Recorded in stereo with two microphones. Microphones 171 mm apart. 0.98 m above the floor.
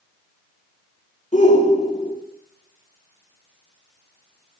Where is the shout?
45° left (ahead or behind), 2.5 m.